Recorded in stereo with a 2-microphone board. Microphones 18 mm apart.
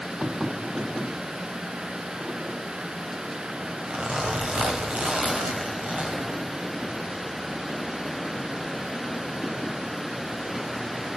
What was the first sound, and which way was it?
A zipper, 70° right (ahead or behind).